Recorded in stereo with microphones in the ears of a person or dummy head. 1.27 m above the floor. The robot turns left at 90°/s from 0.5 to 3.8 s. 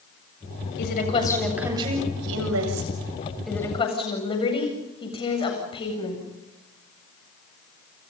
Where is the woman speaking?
65° left, 8 m; by 6.2 s 155° left, 8 m.